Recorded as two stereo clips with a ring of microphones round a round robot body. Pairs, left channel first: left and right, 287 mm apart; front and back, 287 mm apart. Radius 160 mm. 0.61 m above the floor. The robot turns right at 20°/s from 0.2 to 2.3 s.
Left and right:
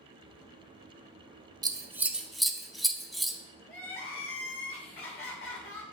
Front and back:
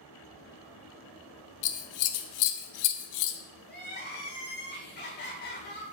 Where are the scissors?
15° right, 0.8 m; by 3.4 s straight ahead, 0.8 m.